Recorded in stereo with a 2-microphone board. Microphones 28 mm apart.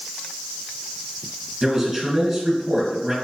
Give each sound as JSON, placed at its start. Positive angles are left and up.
{"t": 1.6, "sound": "a man speaking", "side_deg": -15, "distance_m": 2.0}